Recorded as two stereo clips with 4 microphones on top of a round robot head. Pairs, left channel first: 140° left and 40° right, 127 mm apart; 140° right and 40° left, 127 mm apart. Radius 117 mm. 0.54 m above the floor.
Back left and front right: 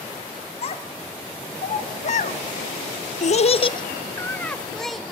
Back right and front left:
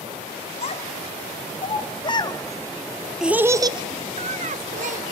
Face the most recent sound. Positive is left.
turn(degrees=50)